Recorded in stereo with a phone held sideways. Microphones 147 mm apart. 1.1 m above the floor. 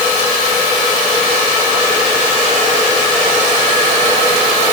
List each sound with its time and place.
Only background noise.